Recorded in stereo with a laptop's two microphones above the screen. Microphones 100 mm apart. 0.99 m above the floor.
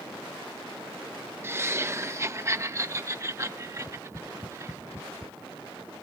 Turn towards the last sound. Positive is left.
turn(degrees=30)  # may be behind; listen again after turning